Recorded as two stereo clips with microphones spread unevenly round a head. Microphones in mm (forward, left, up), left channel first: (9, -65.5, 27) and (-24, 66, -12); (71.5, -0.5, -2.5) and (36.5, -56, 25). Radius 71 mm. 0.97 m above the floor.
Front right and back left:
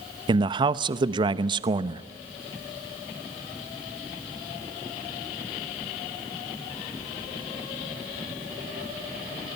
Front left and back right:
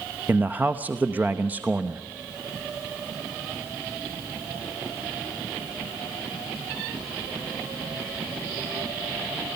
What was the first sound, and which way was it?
A man speaking, 155° left.